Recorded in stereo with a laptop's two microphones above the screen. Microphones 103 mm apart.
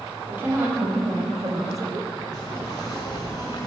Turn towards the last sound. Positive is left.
turn(degrees=40)  # may be behind; listen again after turning